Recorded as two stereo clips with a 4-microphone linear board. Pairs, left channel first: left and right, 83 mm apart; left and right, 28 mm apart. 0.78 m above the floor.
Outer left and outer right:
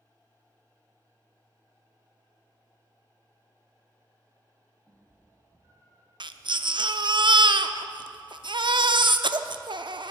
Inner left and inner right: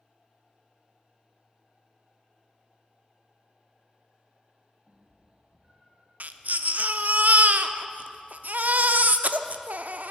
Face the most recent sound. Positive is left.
turn(degrees=-70)  # may be behind; listen again after turning